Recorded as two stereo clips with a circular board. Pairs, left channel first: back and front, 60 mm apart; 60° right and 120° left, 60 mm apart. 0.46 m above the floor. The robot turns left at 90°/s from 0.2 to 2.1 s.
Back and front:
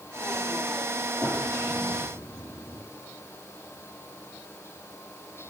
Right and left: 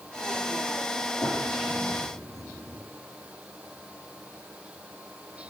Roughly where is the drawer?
Behind right.